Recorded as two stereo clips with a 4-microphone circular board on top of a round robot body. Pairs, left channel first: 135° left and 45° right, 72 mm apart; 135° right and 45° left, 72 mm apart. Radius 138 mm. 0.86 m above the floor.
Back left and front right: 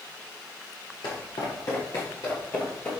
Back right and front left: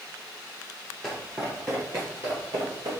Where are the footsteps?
125° left, 1.1 m; by 2.9 s 65° left, 1.4 m.